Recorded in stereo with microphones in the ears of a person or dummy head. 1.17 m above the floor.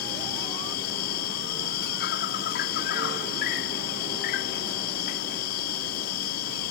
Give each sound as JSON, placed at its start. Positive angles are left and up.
{"t": 0.0, "sound": "an insect", "side_deg": 60}